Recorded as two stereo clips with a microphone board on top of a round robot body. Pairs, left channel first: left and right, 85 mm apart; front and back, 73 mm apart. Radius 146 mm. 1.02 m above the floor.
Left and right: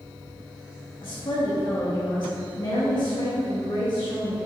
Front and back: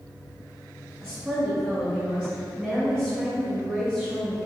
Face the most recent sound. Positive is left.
turn(degrees=105)